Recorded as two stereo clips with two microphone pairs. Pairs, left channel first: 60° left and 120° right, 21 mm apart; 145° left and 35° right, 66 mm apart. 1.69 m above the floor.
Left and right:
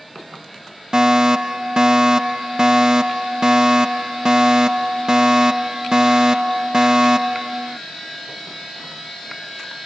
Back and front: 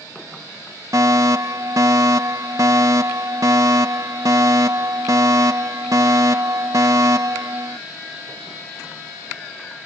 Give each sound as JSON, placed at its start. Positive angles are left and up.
{"t": 0.9, "sound": "a fire alarm", "azimuth_deg": -60}